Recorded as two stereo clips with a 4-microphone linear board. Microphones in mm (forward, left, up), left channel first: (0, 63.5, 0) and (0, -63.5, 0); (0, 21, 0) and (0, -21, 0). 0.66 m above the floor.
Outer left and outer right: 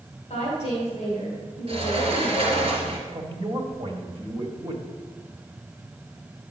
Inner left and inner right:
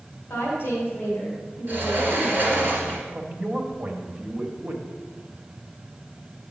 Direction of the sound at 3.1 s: 40° right (ahead or behind).